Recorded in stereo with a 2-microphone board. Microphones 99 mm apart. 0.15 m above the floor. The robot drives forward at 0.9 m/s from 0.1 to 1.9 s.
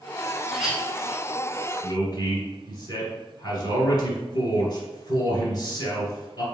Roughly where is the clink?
Centre.